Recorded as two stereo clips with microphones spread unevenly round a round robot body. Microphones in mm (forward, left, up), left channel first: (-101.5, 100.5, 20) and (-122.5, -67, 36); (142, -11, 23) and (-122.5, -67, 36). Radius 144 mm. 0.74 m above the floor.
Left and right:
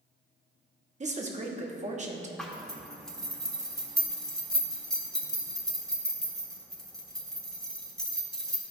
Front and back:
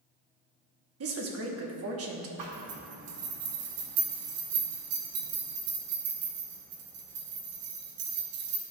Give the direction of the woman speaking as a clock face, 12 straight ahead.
5 o'clock.